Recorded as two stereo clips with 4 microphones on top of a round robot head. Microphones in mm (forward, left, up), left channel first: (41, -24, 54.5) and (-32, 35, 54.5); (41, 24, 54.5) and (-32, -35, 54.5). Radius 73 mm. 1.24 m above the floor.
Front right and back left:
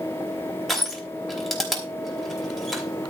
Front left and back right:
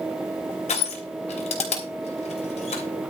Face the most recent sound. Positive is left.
turn(degrees=50)